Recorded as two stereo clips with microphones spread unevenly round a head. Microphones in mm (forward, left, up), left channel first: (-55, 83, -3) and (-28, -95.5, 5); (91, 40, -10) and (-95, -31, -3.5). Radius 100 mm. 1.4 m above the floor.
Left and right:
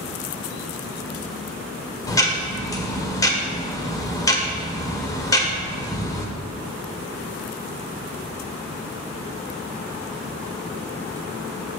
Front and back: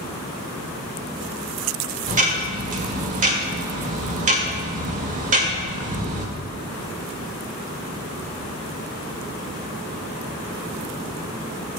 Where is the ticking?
165° left, 1.5 m.